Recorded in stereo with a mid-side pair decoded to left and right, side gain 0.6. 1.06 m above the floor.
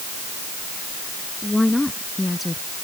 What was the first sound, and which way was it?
A woman speaking, 10° left.